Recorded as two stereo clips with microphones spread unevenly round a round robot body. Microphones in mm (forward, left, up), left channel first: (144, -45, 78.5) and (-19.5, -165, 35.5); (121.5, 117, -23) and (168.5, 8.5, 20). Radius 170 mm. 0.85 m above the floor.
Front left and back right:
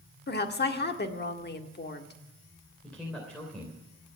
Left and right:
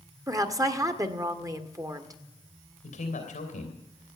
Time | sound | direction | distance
0.3 | a woman speaking | straight ahead | 2 m
2.8 | a man speaking | 125° left | 3 m